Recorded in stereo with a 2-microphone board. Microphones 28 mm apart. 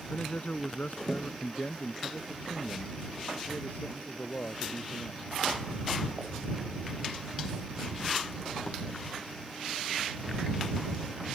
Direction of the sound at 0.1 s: 65° left (ahead or behind).